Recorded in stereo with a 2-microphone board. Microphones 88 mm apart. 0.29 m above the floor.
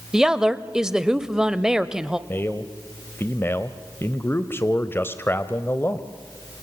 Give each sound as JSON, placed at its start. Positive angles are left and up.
{"t": 0.1, "sound": "a woman speaking", "side_deg": -10, "distance_m": 0.9}
{"t": 2.3, "sound": "a man speaking", "side_deg": 25, "distance_m": 1.0}